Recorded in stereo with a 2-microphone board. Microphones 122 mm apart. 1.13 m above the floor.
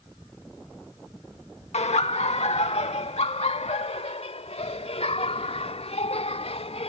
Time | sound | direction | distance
1.7 | laughter | 60° left (ahead or behind) | ?